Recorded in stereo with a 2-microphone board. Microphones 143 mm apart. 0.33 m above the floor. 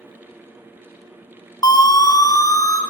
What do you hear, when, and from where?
1.6 s a siren: 25° left (ahead or behind), 2.5 m